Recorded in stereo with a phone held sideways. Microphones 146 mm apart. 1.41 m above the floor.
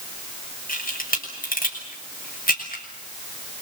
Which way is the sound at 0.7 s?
80° left.